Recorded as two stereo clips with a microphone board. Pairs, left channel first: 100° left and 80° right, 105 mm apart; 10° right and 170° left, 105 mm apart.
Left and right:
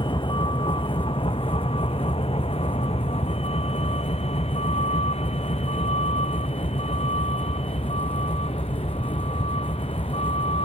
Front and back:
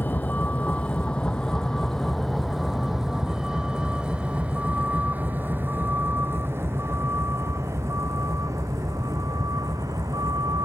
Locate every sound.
0.0 s a vehicle: 65° left; by 10.7 s 115° left